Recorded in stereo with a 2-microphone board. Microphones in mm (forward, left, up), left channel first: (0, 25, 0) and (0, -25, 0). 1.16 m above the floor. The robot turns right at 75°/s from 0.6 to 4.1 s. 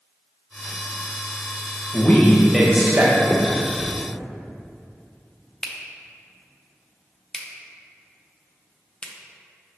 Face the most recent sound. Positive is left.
turn(degrees=15)  # may be behind; listen again after turning